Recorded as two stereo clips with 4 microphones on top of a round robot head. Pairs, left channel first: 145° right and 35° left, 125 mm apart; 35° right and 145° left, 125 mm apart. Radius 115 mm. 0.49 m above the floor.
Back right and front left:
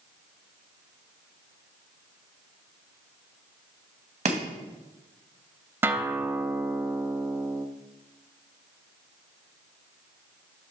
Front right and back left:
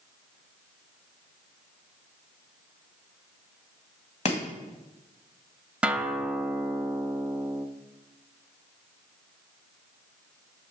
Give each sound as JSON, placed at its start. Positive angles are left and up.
{"t": 4.2, "sound": "chopping", "azimuth_deg": 5, "distance_m": 1.9}
{"t": 5.8, "sound": "a guitar", "azimuth_deg": 80, "distance_m": 0.9}